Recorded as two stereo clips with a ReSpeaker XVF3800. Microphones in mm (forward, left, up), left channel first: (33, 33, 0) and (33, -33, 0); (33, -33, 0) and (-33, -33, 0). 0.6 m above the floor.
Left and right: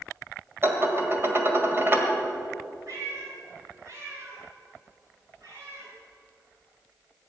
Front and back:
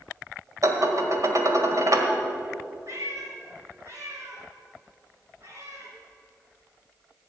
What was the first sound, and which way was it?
Dishes clattering, 145° right.